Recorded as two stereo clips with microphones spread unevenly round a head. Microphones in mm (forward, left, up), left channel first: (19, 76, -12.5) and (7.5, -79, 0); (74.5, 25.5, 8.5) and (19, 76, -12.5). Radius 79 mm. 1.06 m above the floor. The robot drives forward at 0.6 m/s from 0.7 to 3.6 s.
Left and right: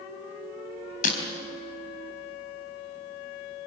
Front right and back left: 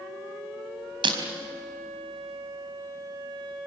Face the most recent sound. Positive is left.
turn(degrees=145)